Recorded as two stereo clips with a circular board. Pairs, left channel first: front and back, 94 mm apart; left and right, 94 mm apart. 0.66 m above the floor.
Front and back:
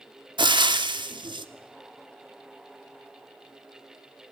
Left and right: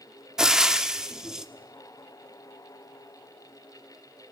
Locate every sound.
0.4 s frying: 175° right, 1.4 m